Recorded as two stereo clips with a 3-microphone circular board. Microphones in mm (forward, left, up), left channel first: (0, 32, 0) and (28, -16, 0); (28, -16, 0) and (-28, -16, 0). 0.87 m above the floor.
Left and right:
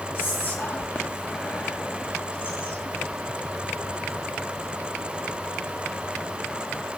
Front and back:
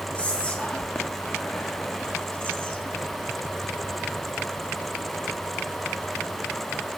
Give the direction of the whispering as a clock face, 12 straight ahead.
10 o'clock.